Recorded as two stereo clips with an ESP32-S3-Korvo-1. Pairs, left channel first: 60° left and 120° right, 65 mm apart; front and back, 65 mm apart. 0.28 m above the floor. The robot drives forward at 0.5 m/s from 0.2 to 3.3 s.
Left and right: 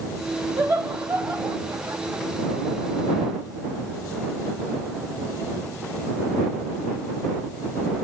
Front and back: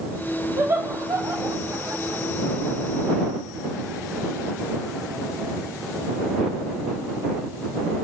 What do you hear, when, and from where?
0.6 s laughter: 165° right, 2 m; by 2.2 s 170° right, 3 m